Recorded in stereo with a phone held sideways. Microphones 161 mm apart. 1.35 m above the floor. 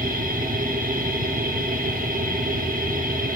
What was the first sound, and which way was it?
A machine running, 55° right (ahead or behind).